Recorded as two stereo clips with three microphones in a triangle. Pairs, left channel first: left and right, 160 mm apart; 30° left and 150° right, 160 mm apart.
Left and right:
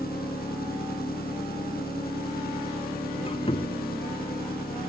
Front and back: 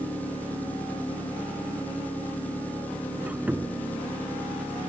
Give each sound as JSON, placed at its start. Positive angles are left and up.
{"t": 0.0, "sound": "an engine running", "azimuth_deg": 110}
{"t": 3.2, "sound": "a squeak", "azimuth_deg": 130}